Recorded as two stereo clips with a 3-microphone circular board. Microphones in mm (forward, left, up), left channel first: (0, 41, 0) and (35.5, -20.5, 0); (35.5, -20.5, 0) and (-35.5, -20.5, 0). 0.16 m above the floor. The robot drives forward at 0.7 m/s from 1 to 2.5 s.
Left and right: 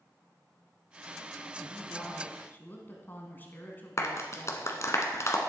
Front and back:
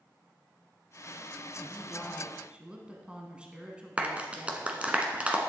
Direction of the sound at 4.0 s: 115° left.